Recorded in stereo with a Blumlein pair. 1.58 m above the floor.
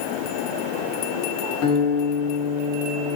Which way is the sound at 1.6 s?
45° left.